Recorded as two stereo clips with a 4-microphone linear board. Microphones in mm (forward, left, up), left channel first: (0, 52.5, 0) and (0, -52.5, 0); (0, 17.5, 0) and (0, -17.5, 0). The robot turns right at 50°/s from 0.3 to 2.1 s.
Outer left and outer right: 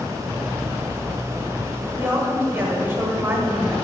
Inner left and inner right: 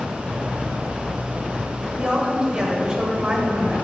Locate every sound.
1.8 s a woman speaking: 35° right (ahead or behind), 1.3 m; by 3.8 s 25° right (ahead or behind), 1.3 m